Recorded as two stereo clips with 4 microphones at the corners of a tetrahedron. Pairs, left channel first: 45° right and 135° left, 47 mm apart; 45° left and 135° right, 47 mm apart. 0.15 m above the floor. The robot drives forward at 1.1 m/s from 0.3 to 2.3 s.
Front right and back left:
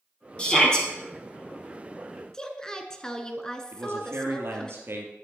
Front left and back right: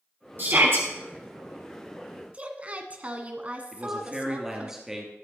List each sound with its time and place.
0.4 s a shout: 110° right, 4 m; by 0.9 s 115° right, 4 m
2.3 s a woman speaking: 105° right, 1.3 m
3.7 s a man speaking: 145° left, 2.5 m